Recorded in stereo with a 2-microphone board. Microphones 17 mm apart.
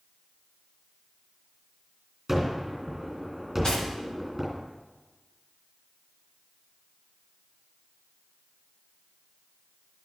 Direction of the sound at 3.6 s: 60° left (ahead or behind).